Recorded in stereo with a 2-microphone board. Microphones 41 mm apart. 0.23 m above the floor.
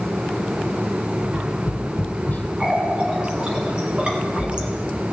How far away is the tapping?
About 1.1 m.